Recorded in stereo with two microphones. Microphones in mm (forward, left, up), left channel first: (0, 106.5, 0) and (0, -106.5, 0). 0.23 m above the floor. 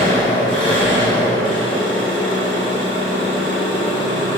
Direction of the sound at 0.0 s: 10° left (ahead or behind).